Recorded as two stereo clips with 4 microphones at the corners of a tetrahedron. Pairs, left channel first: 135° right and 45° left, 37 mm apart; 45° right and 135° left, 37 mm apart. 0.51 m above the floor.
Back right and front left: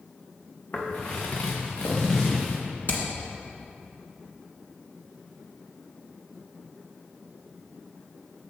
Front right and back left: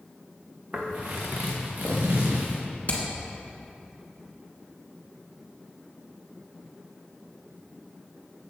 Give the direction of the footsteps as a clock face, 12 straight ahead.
6 o'clock.